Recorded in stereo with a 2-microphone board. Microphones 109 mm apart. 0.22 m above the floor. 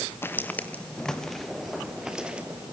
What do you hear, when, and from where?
0.2 s footsteps: 20° left (ahead or behind), 1.8 m; by 2.7 s 10° right (ahead or behind), 3 m